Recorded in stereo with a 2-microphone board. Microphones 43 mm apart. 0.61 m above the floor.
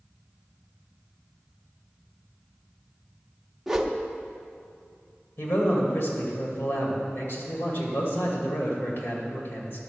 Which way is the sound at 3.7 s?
10° right (ahead or behind).